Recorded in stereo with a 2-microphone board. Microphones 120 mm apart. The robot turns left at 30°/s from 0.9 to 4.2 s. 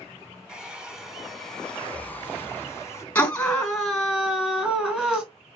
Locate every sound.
0.5 s a hair dryer: 170° right, 0.8 m; by 3.0 s 125° left, 0.8 m
3.1 s a scream: 25° left, 1.6 m; by 5.2 s 10° right, 1.6 m